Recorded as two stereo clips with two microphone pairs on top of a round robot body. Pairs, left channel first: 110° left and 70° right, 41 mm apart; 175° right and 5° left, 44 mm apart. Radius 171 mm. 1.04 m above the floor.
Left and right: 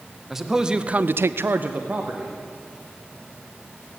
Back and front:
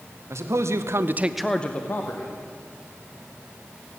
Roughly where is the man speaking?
Ahead.